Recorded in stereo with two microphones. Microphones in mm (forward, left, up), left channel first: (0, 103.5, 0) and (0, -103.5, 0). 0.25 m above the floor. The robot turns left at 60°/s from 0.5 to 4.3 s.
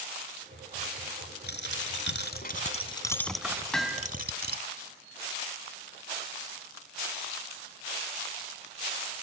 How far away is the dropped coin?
About 1.0 m.